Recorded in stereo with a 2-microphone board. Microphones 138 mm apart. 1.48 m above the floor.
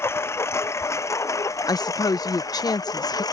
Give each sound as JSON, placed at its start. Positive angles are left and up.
{"t": 0.0, "sound": "a lawn mower", "side_deg": 15}
{"t": 1.7, "sound": "a woman speaking", "side_deg": 25}